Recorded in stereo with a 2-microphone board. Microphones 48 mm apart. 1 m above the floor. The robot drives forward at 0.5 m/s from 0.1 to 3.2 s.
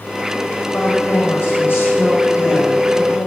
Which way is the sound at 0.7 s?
55° left (ahead or behind).